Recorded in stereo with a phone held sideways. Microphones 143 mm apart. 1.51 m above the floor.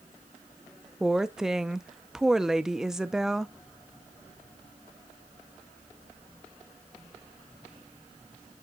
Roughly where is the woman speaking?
Centre.